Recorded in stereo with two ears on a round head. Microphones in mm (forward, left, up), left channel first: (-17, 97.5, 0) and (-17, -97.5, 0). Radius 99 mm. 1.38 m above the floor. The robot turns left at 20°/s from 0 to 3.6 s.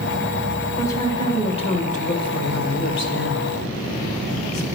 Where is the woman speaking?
170° left, 1.4 m; by 4.7 s 110° left, 1.4 m.